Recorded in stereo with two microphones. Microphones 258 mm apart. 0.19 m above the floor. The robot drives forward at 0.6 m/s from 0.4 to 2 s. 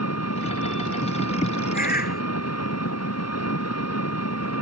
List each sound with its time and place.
0.0 s an engine running: 85° left
1.7 s a bird: 35° left (ahead or behind); by 2.2 s 40° left (ahead or behind)